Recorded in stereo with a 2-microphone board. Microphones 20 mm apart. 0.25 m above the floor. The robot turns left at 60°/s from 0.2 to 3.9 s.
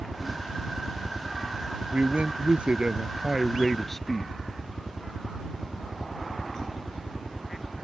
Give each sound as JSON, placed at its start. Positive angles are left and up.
{"t": 0.0, "sound": "a helicopter", "azimuth_deg": -20}
{"t": 1.9, "sound": "a man speaking", "azimuth_deg": -75}